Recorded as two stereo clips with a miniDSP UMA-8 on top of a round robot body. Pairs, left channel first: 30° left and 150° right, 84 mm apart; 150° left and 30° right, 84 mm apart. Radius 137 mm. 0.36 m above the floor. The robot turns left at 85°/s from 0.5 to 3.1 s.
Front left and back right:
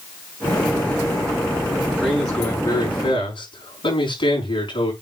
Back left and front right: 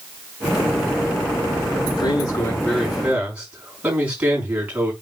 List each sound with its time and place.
2.0 s a man speaking: 140° left, 5.5 m; by 4.9 s 45° left, 5.5 m